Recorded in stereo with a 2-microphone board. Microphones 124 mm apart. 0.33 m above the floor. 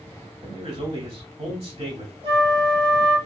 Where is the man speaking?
55° right (ahead or behind), 1.6 m.